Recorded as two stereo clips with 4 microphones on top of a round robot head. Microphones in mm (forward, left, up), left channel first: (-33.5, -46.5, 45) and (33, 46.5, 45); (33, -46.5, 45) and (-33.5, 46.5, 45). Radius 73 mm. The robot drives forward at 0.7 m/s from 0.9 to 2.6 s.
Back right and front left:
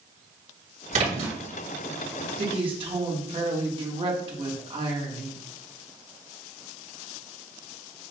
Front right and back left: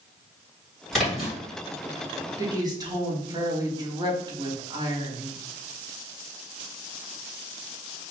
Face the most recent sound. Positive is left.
turn(degrees=80)